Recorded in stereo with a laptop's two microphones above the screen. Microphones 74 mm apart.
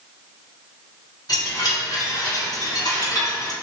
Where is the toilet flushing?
I don't hear a toilet flushing.